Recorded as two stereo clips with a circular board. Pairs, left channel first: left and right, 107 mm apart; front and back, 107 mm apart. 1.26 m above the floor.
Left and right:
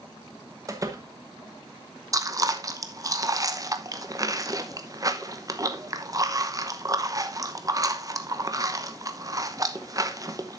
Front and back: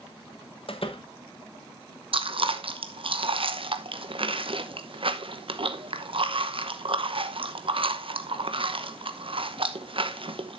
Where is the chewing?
145° right, 0.9 m.